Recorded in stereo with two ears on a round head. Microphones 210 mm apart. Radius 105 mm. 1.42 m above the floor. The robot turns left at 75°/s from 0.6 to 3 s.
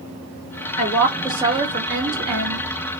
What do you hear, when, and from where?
0.8 s a woman speaking: 35° left, 2.5 m; by 2.7 s 105° right, 2.5 m